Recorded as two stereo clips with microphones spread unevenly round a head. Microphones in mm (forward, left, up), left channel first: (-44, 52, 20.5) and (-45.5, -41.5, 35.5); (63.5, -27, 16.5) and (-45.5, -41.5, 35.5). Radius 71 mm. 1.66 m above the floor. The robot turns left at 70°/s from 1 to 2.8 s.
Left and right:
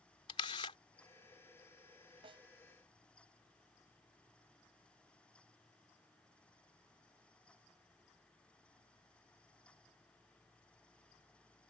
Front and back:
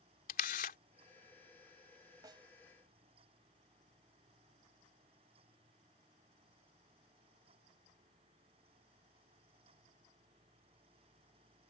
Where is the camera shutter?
30° left.